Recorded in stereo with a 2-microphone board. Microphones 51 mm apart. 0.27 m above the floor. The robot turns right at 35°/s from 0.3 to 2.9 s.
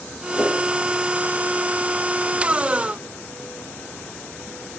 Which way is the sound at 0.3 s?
15° left (ahead or behind).